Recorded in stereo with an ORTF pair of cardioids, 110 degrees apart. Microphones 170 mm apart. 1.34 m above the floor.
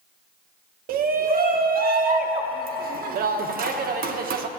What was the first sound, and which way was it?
A shout, 60° right.